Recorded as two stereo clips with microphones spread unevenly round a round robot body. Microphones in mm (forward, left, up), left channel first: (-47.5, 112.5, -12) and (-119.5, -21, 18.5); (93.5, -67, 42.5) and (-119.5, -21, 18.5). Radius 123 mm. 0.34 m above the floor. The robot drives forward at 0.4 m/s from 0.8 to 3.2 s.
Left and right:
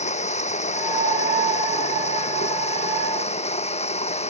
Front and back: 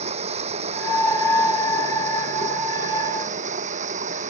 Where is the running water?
100° left; by 4.3 s 105° left.